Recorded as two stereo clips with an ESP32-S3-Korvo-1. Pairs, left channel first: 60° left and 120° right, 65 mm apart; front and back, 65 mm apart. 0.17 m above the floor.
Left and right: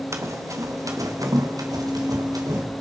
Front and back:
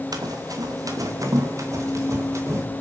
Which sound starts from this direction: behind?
Running footsteps, at 0.1 s.